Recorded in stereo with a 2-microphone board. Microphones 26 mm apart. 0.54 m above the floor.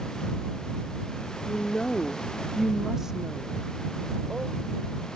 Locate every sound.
1.4 s a woman speaking: 45° left (ahead or behind); by 4.5 s 50° right (ahead or behind)